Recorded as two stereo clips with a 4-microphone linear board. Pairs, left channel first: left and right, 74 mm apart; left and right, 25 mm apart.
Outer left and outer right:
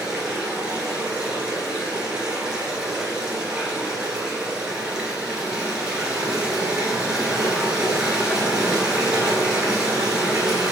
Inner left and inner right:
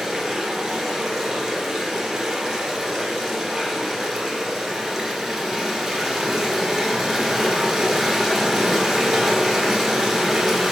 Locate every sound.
0.0 s running water: 10° right (ahead or behind), 1.8 m